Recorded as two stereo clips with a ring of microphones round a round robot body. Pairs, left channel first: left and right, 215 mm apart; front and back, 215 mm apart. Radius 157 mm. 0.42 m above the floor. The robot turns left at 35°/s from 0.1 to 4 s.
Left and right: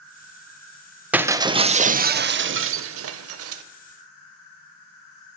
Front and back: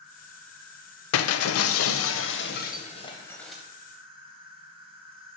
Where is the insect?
110° right, 3 m; by 5.4 s 115° left, 3 m.